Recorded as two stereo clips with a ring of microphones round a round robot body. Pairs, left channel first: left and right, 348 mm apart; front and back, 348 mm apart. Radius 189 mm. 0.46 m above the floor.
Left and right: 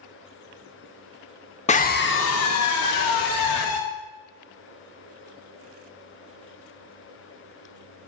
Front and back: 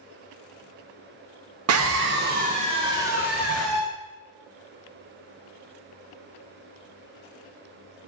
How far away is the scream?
About 1.1 m.